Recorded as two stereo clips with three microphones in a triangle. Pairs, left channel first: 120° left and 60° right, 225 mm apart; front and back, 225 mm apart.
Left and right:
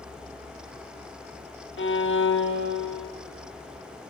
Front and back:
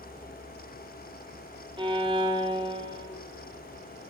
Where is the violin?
115° left, 0.6 m.